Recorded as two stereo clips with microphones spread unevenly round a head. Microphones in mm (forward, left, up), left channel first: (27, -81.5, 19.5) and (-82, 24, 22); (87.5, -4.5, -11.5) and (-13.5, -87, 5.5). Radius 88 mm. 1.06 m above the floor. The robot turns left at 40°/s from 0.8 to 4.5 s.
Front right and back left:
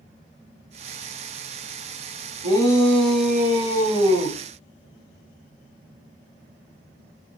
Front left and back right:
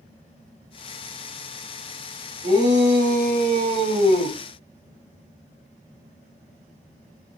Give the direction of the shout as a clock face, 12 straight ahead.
3 o'clock.